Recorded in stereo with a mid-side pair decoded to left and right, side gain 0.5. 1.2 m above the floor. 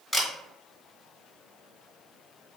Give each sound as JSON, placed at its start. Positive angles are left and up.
{"t": 0.1, "sound": "a camera shutter", "azimuth_deg": 5, "distance_m": 1.4}